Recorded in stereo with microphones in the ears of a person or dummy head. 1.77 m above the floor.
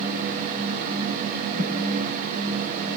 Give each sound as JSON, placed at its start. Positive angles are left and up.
{"t": 1.5, "sound": "a thud", "side_deg": -45, "distance_m": 7.0}